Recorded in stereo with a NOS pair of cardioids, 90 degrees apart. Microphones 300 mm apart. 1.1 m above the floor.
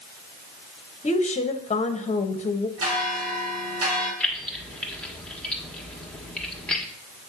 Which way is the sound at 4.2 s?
5° left.